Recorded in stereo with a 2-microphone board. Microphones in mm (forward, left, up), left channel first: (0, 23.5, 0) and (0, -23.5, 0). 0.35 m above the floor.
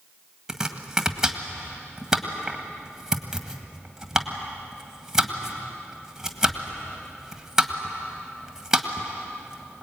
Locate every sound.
0.5 s chopping: 10° right (ahead or behind), 1.7 m